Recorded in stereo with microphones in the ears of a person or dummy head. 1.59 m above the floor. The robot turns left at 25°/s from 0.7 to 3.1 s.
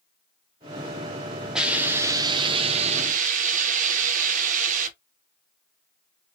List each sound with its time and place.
1.6 s a hiss: 5° right, 1.0 m; by 4.9 s 45° right, 1.0 m